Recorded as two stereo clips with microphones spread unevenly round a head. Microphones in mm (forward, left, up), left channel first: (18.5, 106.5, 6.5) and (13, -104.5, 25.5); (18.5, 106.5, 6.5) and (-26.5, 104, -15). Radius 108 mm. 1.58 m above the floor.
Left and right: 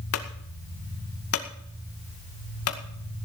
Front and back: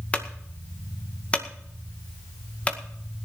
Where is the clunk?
70° left, 2 m.